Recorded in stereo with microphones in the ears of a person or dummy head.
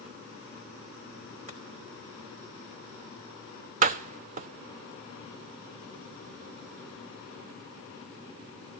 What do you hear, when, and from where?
1.5 s chopping: 40° right (ahead or behind), 3.5 m
3.8 s a door slam: 45° right (ahead or behind), 0.6 m